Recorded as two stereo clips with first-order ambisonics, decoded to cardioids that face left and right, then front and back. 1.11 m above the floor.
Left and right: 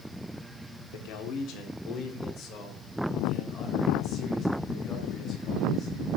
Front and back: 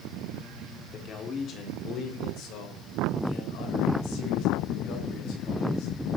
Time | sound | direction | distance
0.9 | a man speaking | 65° left | 3 m